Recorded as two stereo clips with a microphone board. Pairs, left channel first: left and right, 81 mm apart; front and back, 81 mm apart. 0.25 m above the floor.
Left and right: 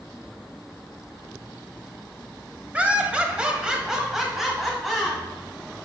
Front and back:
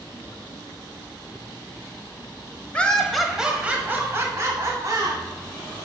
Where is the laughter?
45° right, 1.0 m; by 5.2 s straight behind, 1.5 m.